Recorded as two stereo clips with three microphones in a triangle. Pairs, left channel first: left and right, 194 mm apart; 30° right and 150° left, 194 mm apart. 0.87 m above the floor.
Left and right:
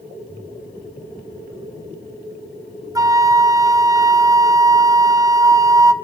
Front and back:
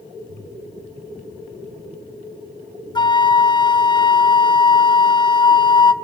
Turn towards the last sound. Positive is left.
turn(degrees=-45)